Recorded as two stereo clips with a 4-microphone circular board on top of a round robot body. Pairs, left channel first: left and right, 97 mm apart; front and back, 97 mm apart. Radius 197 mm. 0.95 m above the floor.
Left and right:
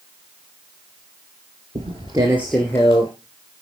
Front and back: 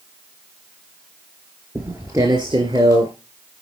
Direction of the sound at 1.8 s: 105° right.